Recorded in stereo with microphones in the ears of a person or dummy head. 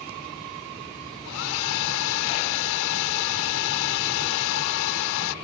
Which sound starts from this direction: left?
A hair dryer, at 1.2 s.